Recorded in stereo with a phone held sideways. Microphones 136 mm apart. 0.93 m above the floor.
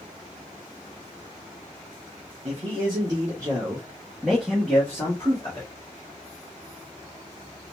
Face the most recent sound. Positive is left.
turn(degrees=25)  # may be behind; listen again after turning